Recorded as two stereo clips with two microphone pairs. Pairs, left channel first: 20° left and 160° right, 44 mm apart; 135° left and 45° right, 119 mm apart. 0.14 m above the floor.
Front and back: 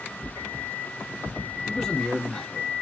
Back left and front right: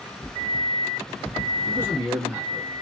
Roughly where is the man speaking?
Ahead right.